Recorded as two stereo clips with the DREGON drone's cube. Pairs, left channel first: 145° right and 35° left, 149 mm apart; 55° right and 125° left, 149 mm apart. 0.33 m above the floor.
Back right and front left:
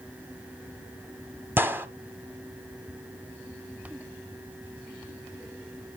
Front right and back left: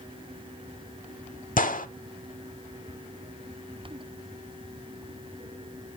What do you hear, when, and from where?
1.6 s a gunshot: 40° right, 0.7 m